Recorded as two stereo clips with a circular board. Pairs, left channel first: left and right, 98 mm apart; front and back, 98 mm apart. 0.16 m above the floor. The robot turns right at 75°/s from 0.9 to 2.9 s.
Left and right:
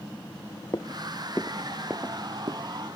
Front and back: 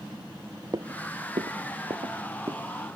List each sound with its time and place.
0.7 s footsteps: 135° left; by 2.7 s 105° right